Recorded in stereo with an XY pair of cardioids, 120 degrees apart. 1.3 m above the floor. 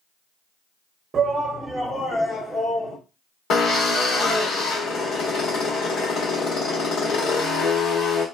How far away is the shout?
About 0.8 m.